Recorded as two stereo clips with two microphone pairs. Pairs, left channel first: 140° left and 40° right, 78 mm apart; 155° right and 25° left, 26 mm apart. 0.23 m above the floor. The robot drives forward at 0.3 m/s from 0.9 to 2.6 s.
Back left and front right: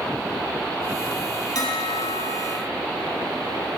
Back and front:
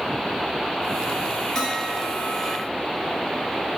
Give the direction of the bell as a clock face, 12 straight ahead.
7 o'clock.